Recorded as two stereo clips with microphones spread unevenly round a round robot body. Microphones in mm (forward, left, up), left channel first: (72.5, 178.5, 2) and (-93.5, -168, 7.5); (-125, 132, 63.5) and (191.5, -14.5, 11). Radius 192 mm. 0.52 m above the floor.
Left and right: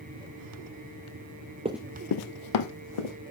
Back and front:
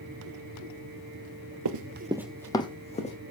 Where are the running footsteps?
50° right, 0.6 m; by 3.1 s 85° left, 2 m.